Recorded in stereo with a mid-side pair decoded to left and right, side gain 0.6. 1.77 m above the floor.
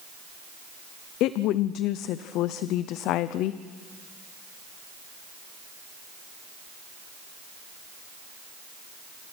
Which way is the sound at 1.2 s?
65° left.